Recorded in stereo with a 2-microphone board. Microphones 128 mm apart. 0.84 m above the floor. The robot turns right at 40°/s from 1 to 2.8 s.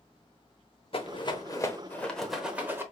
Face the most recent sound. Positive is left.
turn(degrees=-20)  # may be behind; listen again after turning